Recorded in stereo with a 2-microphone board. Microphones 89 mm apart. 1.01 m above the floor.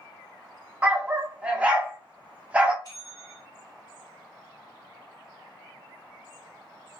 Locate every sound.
0.8 s a dog barking: 15° right (ahead or behind), 0.7 m
2.8 s a bell: 50° left (ahead or behind), 1.2 m